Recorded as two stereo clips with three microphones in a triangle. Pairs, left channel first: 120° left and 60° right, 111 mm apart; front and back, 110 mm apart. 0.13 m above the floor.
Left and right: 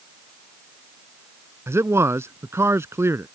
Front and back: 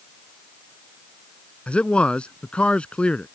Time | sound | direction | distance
1.7 | a man speaking | 65° right | ?